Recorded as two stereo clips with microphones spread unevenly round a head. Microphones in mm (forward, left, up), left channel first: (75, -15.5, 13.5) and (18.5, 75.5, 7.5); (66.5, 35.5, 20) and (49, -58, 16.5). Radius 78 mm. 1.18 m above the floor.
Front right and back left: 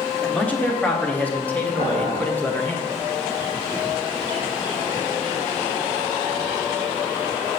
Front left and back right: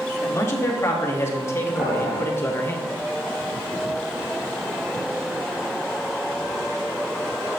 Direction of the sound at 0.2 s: 20° left.